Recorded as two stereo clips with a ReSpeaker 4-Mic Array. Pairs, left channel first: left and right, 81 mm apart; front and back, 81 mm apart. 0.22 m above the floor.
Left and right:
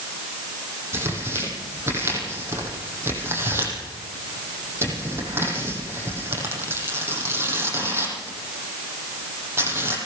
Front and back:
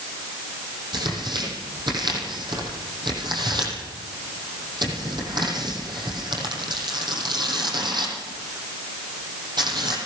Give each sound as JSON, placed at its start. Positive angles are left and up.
{"t": 0.9, "sound": "tearing paper", "azimuth_deg": -150, "distance_m": 7.0}